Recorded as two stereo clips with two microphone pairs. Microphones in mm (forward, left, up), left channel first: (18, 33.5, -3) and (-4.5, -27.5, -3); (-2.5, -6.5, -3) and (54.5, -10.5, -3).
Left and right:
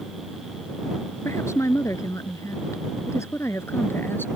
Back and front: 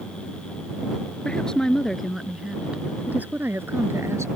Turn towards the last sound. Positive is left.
turn(degrees=15)